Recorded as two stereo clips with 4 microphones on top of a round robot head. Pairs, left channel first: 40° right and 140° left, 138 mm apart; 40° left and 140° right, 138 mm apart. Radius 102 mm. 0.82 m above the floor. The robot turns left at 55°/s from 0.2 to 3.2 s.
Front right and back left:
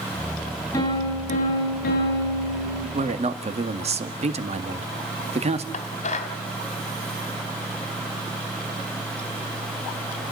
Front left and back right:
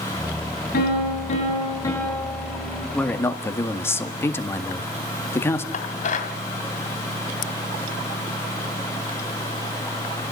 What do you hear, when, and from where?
0.7 s a piano: 25° left, 8.5 m; by 2.8 s 90° right, 8.5 m
2.9 s a man speaking: 125° left, 2 m; by 5.6 s 110° left, 2 m
5.7 s dishes clattering: 5° left, 2.5 m